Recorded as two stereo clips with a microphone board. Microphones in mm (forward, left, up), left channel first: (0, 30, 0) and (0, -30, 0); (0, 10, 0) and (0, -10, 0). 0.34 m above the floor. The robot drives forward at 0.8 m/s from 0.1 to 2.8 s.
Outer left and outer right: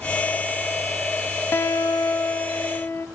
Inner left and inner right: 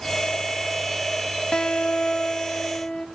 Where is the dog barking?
No dog barking in this recording.